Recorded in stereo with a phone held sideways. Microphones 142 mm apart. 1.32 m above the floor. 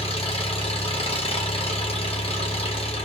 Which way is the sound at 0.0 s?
40° left (ahead or behind).